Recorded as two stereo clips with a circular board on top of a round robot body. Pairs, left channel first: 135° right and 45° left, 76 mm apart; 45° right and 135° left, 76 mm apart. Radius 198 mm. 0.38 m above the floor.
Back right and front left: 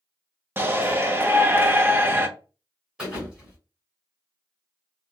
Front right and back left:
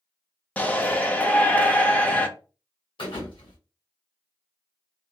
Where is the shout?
10° left, 1.0 m.